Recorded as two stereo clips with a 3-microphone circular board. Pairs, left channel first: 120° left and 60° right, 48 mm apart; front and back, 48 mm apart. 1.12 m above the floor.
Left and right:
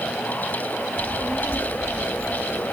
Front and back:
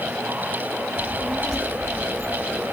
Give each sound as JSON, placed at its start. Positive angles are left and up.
{"t": 1.0, "sound": "a child speaking", "azimuth_deg": 85, "distance_m": 1.4}